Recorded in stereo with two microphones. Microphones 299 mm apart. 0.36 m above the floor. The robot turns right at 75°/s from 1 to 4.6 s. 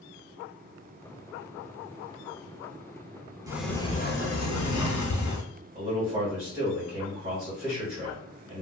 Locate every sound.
3.5 s a sliding door: 15° right, 0.6 m; by 5.5 s 75° left, 0.6 m
5.8 s a man speaking: 20° right (ahead or behind), 1.5 m